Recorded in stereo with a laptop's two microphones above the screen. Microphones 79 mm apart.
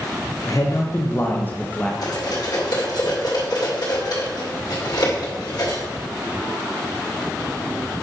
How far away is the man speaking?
About 1.1 m.